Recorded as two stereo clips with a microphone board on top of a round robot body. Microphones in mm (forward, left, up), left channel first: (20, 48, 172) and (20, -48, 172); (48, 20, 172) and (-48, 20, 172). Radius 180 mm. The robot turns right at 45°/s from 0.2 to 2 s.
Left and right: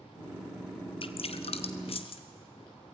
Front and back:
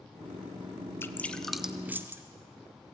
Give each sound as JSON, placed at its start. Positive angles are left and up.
{"t": 1.0, "sound": "dripping", "azimuth_deg": 65, "distance_m": 1.3}